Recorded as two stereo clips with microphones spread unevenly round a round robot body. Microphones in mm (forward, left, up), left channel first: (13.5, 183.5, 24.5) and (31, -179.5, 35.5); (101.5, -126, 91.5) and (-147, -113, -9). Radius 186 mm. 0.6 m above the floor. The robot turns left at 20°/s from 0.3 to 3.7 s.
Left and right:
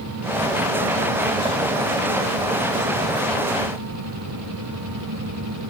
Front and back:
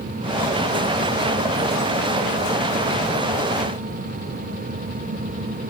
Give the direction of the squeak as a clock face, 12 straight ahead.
No squeak in this recording.